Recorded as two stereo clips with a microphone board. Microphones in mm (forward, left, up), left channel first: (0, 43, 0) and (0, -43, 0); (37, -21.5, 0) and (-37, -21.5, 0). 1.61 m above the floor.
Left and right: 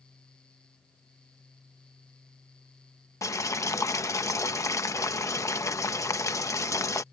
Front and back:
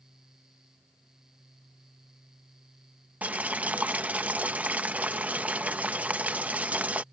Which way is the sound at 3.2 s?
120° left.